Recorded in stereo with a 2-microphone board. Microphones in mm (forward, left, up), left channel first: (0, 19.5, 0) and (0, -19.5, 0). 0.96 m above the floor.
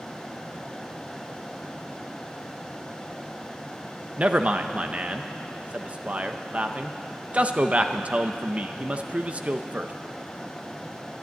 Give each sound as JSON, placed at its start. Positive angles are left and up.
{"t": 4.2, "sound": "a man speaking", "side_deg": -35, "distance_m": 0.7}